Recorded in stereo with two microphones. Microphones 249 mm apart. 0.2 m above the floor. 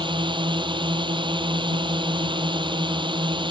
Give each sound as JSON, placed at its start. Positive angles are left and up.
{"t": 0.0, "sound": "a drone", "side_deg": -20}